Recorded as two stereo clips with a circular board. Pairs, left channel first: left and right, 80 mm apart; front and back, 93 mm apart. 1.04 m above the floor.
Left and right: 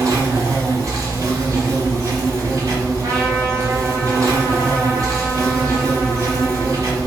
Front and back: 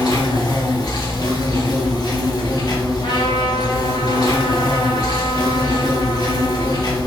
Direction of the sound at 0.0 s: 40° right.